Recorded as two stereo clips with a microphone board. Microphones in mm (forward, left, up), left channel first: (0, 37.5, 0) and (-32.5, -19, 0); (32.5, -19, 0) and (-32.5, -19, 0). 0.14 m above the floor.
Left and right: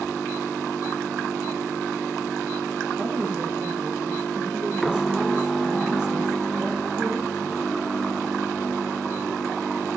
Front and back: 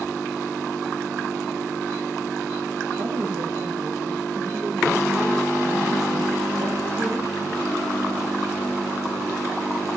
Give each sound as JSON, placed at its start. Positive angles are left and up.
{"t": 3.0, "sound": "a woman speaking", "azimuth_deg": 180, "distance_m": 8.5}